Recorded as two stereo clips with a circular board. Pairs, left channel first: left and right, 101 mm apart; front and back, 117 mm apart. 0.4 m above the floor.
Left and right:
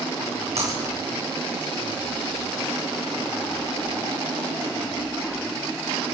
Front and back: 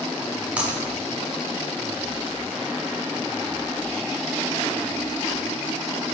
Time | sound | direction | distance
0.6 | breaking glass | 100° right | 8 m